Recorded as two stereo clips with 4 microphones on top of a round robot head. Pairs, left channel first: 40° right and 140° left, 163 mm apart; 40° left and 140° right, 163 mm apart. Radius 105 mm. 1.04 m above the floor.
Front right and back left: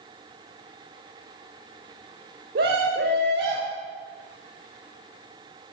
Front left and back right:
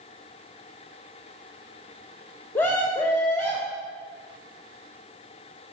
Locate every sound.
2.5 s a scream: 115° left, 2.5 m